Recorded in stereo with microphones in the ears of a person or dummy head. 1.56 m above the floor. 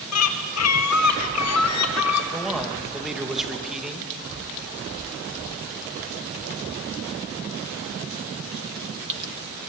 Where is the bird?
80° left, 1.7 m.